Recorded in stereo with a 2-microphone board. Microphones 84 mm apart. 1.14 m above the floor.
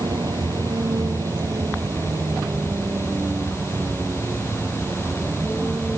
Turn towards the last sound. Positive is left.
turn(degrees=-20)  # may be behind; listen again after turning